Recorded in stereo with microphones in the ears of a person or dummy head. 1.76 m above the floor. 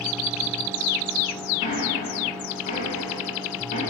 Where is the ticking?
45° left (ahead or behind), 2.5 m.